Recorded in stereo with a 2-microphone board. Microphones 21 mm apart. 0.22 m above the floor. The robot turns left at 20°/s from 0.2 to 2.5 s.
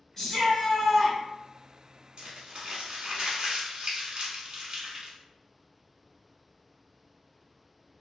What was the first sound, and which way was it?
A shout, 20° left (ahead or behind).